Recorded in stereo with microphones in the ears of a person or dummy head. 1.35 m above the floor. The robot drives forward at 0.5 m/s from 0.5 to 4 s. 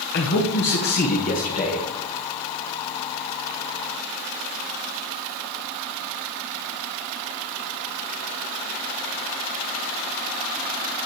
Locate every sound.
0.1 s a man speaking: 50° left (ahead or behind), 1.0 m; by 1.9 s 35° left (ahead or behind), 1.5 m